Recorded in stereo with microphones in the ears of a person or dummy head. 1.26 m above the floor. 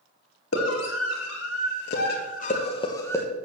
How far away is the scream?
About 3 m.